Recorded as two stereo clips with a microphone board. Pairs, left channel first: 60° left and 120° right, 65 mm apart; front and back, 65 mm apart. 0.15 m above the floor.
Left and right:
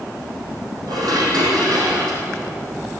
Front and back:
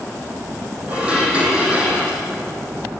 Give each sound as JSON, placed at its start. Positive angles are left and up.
{"t": 0.9, "sound": "dishes clattering", "azimuth_deg": -110, "distance_m": 4.0}